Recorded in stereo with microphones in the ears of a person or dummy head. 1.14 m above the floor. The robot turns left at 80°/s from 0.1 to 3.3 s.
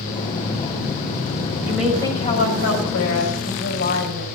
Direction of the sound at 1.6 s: 165° right.